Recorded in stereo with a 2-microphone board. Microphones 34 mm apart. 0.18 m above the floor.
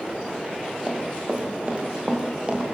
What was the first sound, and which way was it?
Running footsteps, 25° right (ahead or behind).